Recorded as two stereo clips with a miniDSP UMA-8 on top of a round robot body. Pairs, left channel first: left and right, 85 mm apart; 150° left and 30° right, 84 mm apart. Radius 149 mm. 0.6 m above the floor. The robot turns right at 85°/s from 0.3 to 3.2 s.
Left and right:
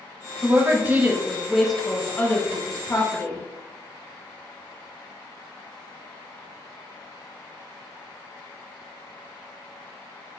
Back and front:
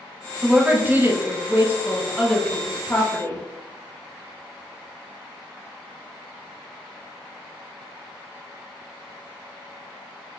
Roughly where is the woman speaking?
Right.